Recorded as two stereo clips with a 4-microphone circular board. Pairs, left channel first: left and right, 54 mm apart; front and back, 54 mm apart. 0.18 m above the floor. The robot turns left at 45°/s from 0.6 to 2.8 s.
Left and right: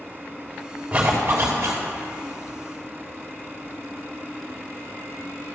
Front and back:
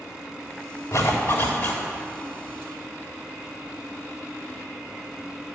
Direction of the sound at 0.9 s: 20° right.